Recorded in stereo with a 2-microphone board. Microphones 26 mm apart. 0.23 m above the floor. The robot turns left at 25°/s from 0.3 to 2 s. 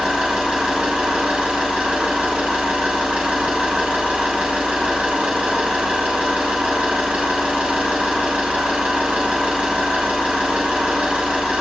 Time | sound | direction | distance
0.0 | an engine running | 35° right | 1.0 m